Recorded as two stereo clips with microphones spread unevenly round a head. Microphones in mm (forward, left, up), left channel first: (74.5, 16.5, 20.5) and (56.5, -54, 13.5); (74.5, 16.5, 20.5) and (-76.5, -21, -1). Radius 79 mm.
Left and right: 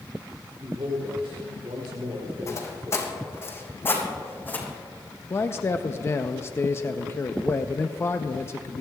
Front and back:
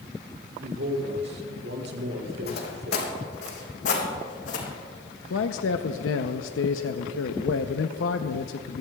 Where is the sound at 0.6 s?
150° right, 3 m.